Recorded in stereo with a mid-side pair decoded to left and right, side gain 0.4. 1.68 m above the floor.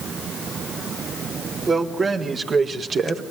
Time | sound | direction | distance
1.7 | a man speaking | 40° right | 5 m